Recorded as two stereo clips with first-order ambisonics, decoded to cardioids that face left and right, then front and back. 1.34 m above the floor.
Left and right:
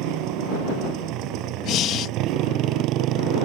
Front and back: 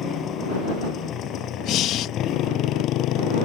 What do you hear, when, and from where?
0.0 s a motorcycle: 60° right; by 3.5 s 45° right
1.6 s breathing: 45° left